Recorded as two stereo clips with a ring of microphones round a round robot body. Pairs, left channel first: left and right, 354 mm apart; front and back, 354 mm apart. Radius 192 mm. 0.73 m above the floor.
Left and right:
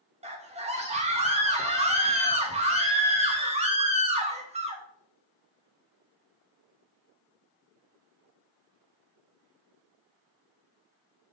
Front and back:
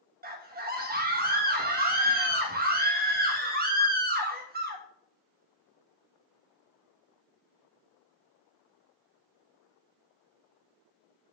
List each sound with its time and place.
0.2 s a scream: 145° right, 1.1 m